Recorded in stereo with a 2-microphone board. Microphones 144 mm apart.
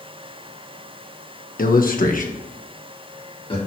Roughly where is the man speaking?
Left.